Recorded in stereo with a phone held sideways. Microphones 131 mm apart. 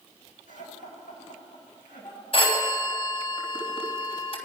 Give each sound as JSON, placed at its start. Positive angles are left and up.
{"t": 0.5, "sound": "laughter", "side_deg": 80, "distance_m": 6.5}
{"t": 2.3, "sound": "a phone ringing", "side_deg": 45, "distance_m": 3.0}